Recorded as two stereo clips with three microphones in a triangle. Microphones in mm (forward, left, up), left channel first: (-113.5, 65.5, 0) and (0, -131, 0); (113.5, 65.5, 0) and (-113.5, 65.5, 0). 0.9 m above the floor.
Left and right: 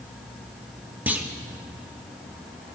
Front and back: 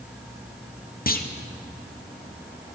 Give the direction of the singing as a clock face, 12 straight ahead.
I don't hear singing.